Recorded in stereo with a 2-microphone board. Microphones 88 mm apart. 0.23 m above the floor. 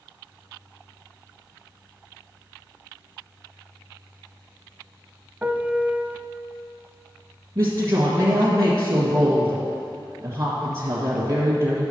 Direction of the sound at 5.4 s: 20° right (ahead or behind).